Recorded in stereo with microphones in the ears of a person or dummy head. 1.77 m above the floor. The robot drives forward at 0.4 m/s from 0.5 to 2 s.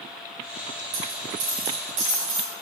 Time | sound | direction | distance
0.9 | a dropped coin | 45° right (ahead or behind) | 1.7 m